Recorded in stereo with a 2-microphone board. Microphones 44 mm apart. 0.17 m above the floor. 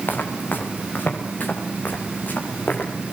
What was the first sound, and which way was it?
Footsteps, 50° left (ahead or behind).